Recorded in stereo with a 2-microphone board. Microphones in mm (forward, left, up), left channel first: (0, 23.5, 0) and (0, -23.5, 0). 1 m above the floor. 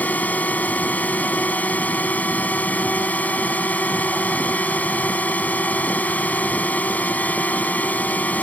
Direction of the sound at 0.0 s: 35° left (ahead or behind).